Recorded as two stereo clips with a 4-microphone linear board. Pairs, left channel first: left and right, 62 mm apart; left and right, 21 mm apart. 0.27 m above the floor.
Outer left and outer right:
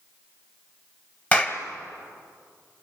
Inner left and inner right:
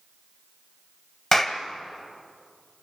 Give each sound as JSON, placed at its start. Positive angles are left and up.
{"t": 1.3, "sound": "a clap", "side_deg": 25, "distance_m": 1.4}